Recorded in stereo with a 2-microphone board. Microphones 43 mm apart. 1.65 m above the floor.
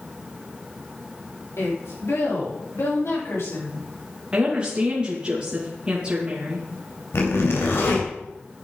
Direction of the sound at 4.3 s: 20° right (ahead or behind).